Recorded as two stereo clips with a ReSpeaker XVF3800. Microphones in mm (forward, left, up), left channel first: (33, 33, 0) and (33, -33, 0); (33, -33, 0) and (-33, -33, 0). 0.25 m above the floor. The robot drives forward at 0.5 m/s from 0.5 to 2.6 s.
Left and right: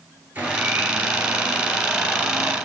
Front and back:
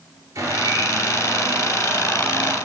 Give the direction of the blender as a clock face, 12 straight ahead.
5 o'clock.